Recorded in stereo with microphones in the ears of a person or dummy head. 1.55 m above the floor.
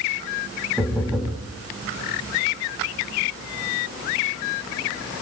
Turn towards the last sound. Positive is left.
turn(degrees=-5)  # may be behind; listen again after turning